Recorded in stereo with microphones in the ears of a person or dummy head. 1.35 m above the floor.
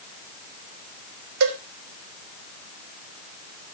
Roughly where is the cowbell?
Right.